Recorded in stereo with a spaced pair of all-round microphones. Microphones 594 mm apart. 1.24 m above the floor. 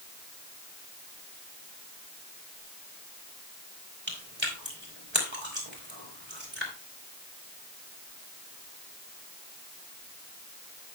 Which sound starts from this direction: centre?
Chewing, at 4.1 s.